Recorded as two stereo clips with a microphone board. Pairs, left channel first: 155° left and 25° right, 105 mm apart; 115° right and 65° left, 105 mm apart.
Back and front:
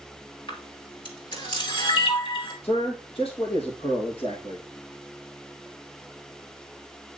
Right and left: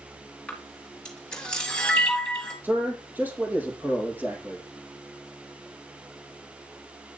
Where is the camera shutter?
165° left, 3 m.